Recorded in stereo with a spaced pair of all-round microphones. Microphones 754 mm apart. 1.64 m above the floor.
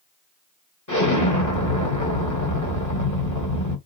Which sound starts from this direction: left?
An explosion, at 0.9 s.